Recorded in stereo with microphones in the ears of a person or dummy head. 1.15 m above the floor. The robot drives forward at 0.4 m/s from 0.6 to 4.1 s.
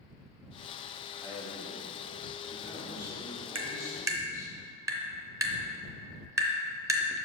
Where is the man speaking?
15° right (ahead or behind), 2.5 m; by 4.5 s 10° right (ahead or behind), 3.5 m.